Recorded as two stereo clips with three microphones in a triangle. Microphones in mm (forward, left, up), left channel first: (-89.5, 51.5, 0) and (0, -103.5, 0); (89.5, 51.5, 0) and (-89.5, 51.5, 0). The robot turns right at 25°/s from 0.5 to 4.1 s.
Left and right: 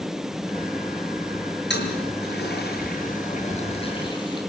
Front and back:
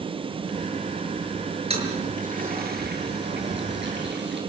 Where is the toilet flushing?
125° left, 6 m; by 4.4 s 175° right, 6 m.